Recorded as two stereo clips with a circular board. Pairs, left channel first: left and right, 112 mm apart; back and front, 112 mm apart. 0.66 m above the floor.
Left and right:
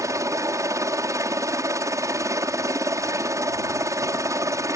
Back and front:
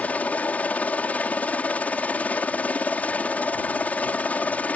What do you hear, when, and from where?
0.0 s a helicopter: 115° right